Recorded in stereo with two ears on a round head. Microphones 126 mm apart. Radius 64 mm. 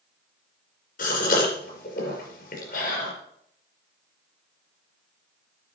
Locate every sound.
1.0 s a gasp: 65° left (ahead or behind), 5 m